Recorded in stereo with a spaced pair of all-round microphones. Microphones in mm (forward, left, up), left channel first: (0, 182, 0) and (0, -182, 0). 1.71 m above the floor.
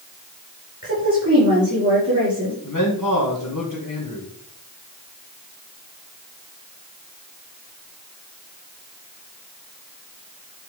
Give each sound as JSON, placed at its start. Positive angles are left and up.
{"t": 0.8, "sound": "a woman speaking", "side_deg": -35, "distance_m": 5.5}
{"t": 2.6, "sound": "a man speaking", "side_deg": 50, "distance_m": 2.5}